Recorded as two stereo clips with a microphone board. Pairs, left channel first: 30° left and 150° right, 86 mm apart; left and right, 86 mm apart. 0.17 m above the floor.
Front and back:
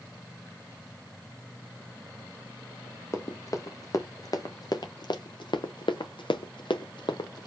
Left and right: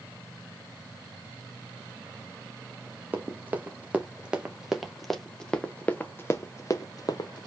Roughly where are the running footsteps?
Ahead right.